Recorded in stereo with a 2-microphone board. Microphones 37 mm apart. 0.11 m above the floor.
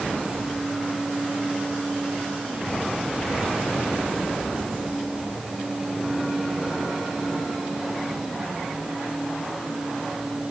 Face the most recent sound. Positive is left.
No sound to turn to.